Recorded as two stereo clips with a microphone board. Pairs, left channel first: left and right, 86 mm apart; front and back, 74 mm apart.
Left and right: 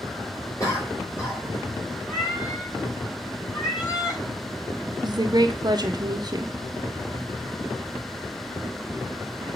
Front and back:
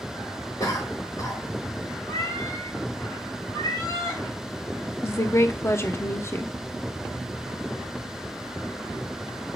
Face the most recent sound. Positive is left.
turn(degrees=-55)